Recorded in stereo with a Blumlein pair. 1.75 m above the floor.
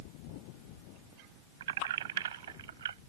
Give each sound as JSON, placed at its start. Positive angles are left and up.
{"t": 1.6, "sound": "keys jangling", "azimuth_deg": -60}